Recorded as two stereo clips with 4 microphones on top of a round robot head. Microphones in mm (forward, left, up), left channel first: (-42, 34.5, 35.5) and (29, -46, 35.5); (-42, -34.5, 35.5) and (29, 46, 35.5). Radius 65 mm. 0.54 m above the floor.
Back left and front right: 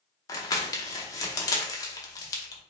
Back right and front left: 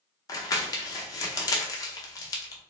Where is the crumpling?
Straight behind, 0.7 m.